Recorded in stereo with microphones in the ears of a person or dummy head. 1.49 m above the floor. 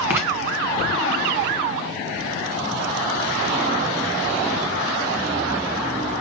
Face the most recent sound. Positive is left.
turn(degrees=-10)  # may be behind; listen again after turning